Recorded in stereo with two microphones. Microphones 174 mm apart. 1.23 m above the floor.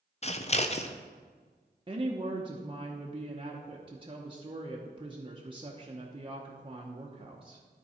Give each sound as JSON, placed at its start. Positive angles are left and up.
{"t": 0.2, "sound": "scissors", "side_deg": 40, "distance_m": 0.5}
{"t": 1.9, "sound": "a woman speaking", "side_deg": -30, "distance_m": 0.8}